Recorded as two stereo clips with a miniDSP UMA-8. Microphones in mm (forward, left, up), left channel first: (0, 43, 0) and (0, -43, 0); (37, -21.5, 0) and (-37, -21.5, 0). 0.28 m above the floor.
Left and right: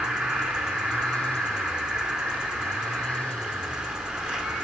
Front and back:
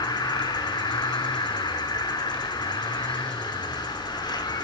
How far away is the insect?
About 1.4 m.